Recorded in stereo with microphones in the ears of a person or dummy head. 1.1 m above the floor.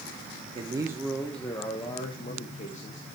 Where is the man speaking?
30° right (ahead or behind), 0.9 m; by 3.1 s 40° left (ahead or behind), 1.9 m.